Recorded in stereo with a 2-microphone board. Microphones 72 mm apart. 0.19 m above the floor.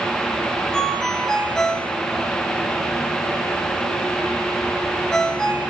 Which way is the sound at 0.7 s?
10° left (ahead or behind).